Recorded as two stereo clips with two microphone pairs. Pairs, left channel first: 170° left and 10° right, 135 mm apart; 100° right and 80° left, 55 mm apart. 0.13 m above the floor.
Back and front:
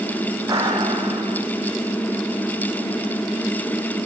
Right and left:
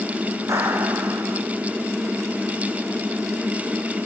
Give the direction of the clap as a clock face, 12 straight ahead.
10 o'clock.